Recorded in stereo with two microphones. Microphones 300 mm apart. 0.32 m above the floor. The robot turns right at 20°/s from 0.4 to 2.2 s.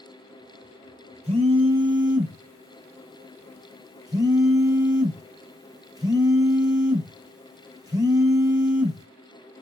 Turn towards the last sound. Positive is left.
turn(degrees=-10)  # may be behind; listen again after turning